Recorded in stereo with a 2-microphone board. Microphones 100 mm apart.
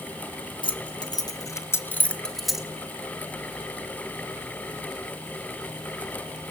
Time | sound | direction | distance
0.6 | keys jangling | 55° left (ahead or behind) | 1.4 m